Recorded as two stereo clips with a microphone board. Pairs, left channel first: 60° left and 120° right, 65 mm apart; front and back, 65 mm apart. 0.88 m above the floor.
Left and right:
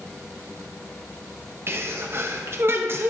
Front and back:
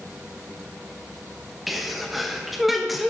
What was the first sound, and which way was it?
A sneeze, 90° right.